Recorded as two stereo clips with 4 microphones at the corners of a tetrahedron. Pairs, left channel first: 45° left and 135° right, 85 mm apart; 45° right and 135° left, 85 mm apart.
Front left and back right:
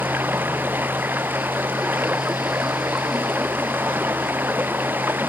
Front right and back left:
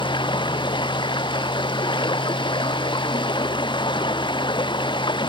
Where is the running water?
70° right.